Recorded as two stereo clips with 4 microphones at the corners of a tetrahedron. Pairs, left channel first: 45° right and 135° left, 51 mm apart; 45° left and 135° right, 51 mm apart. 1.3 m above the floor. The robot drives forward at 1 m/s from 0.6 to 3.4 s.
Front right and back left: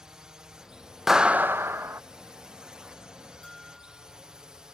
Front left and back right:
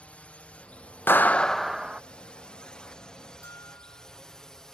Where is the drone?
70° left; by 4.8 s 95° left.